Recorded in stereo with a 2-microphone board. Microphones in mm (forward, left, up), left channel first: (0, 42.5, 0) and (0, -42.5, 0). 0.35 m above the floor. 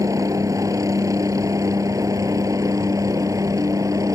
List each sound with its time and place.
0.0 s a helicopter: 40° right (ahead or behind)